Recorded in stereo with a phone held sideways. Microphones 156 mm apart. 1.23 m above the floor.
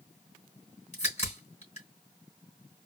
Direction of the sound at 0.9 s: 45° left (ahead or behind).